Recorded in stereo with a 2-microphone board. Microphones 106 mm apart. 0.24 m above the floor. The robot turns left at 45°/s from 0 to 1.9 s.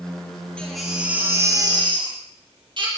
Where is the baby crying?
10° left, 5 m; by 2.9 s 50° right, 5 m.